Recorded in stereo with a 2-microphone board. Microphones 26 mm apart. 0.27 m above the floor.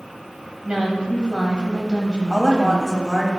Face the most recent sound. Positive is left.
turn(degrees=20)  # may be behind; listen again after turning